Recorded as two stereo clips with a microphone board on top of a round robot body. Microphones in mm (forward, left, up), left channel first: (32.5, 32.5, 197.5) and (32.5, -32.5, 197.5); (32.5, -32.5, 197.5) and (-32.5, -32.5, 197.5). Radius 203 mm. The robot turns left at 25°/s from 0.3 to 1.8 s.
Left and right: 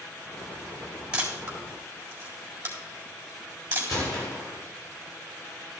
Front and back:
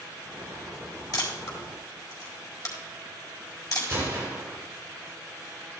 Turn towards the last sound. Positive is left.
turn(degrees=125)